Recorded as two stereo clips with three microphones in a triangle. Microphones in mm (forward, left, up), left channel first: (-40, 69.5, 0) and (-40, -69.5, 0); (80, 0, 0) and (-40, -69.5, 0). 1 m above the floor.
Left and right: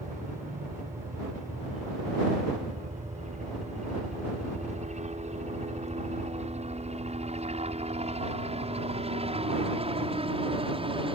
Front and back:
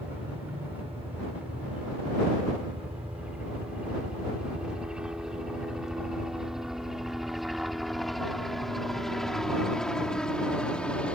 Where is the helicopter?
75° right; by 11.2 s 50° right.